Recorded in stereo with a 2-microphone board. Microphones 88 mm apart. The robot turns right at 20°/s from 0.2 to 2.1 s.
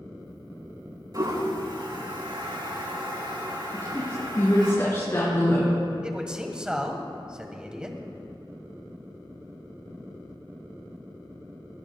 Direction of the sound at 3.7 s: 35° left (ahead or behind).